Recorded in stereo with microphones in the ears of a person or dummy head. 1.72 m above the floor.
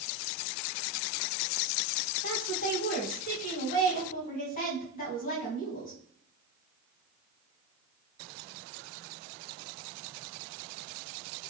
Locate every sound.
2.2 s a woman speaking: 45° left (ahead or behind), 1.7 m